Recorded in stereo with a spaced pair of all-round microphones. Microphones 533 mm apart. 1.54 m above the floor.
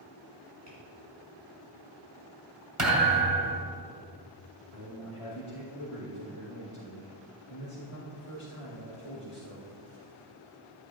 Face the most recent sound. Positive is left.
turn(degrees=75)  # may be behind; listen again after turning